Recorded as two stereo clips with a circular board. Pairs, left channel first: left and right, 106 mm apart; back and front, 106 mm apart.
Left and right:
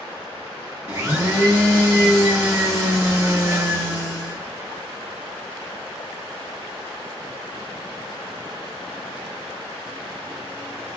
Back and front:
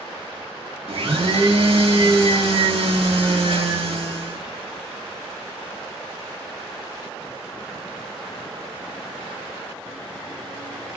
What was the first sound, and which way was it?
A blender, 25° right.